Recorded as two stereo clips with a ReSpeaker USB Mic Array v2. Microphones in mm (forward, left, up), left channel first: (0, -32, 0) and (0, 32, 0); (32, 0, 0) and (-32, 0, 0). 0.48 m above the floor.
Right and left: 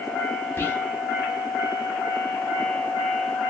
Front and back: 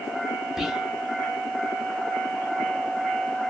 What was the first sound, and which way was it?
Whispering, 100° right.